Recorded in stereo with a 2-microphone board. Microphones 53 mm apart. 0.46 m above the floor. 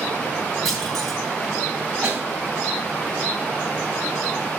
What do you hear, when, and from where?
0.7 s a clunk: 5° left (ahead or behind), 5 m
2.0 s a snare drum: 20° right (ahead or behind), 2.5 m